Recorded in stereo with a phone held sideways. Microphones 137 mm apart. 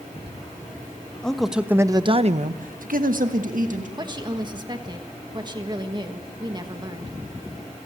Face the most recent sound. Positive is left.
turn(degrees=-30)  # may be behind; listen again after turning